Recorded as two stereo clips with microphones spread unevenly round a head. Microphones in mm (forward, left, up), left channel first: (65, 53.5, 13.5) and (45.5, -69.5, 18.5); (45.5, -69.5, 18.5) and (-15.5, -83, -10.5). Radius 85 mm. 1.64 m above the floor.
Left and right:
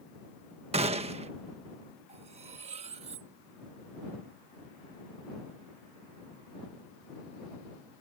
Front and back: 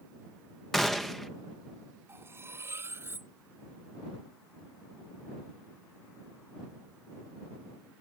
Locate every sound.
0.7 s a gunshot: 65° right
2.1 s cutlery clinking: 105° right